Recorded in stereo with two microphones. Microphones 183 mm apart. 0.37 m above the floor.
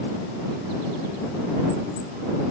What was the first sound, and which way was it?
Only background noise.